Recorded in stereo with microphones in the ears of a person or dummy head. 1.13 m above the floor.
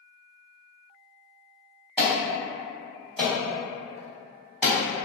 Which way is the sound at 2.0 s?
Centre (ahead or behind).